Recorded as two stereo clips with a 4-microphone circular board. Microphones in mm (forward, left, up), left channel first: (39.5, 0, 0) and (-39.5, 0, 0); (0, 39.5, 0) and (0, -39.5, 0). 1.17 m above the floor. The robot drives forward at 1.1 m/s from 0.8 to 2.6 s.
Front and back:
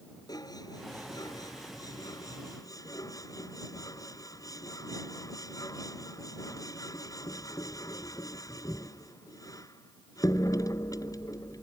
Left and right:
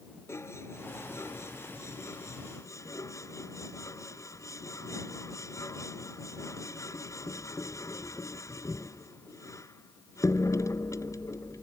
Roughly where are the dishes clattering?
Ahead left.